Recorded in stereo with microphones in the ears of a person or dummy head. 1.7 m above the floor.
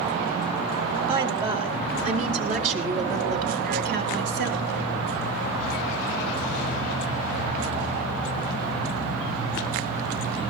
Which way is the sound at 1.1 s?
30° right (ahead or behind).